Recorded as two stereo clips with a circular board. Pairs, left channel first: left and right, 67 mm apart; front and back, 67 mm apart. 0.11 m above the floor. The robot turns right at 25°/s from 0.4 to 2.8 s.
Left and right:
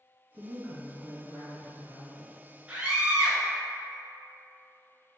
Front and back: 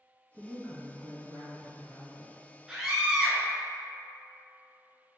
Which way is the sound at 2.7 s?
125° right.